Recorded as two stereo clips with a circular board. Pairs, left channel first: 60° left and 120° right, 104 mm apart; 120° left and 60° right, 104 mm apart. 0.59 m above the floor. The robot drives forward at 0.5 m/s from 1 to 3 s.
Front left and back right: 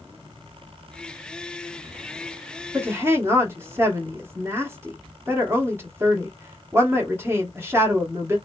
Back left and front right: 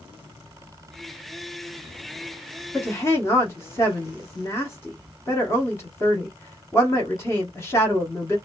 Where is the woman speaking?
Straight behind, 0.9 m.